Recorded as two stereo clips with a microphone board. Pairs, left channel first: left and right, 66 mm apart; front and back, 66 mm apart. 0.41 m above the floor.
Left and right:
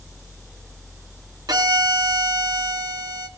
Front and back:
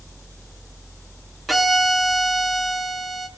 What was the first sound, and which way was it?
A violin, 90° right.